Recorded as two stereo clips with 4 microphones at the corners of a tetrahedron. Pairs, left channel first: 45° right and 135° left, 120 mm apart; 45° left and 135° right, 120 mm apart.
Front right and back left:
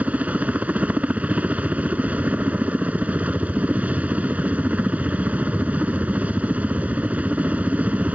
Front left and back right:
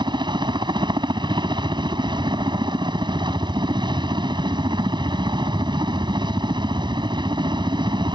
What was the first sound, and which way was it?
A helicopter, 155° right.